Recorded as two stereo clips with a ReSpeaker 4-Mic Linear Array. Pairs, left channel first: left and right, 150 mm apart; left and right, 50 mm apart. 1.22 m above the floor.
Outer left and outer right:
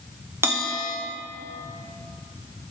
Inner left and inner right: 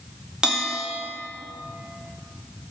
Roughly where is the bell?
Centre.